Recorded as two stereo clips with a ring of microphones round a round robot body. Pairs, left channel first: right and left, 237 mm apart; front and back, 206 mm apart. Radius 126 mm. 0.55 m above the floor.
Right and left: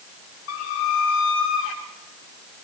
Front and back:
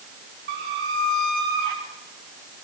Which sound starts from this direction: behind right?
A squeak, at 0.5 s.